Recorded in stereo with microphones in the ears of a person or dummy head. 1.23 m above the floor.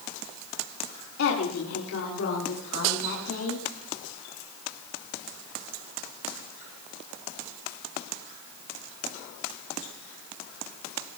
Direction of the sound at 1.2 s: 85° left.